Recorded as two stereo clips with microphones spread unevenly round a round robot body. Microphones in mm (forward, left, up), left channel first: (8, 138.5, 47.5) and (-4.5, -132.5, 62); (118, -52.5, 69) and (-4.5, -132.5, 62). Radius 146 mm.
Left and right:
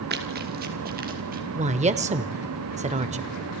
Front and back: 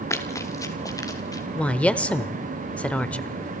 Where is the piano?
I don't hear a piano.